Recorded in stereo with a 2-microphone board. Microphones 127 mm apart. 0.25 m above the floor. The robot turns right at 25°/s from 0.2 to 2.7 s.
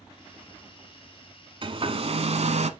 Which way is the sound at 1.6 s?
45° right (ahead or behind).